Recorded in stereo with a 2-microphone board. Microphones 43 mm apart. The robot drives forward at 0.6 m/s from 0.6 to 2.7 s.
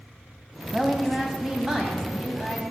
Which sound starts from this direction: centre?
A woman speaking, at 0.7 s.